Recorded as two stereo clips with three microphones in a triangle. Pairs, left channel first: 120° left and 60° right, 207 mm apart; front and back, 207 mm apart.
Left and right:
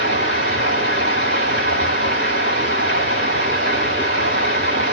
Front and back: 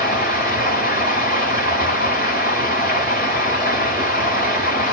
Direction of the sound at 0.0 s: 45° right.